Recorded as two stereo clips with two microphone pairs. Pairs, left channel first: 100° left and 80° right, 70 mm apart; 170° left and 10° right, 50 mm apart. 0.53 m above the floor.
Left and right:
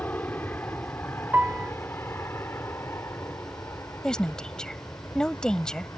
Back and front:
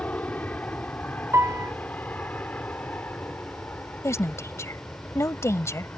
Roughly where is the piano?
Ahead.